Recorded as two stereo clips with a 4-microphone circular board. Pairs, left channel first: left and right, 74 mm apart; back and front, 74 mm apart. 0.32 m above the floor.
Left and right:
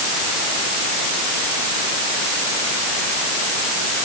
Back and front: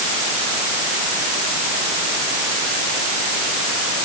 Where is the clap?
No clap in this recording.